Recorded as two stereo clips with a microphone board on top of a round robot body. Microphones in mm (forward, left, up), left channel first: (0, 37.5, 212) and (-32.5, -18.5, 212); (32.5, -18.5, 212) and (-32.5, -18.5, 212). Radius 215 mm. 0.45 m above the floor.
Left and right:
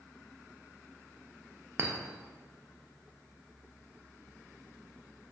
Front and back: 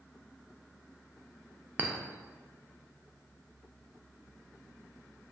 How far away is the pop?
No pop in this recording.